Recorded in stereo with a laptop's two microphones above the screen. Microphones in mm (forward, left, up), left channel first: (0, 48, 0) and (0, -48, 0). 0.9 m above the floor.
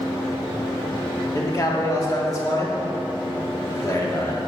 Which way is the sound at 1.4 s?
35° left (ahead or behind).